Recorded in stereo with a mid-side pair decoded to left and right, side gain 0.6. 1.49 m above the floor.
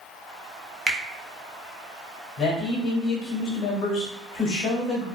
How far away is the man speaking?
About 1.2 m.